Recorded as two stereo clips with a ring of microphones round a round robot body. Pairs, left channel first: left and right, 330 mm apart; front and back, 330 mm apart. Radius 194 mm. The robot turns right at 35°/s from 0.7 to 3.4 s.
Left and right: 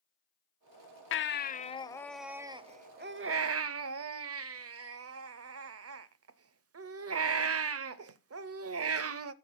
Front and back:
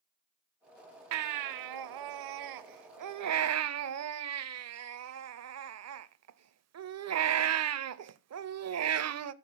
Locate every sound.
1.1 s a baby crying: 140° left, 0.7 m; by 9.3 s 135° right, 0.7 m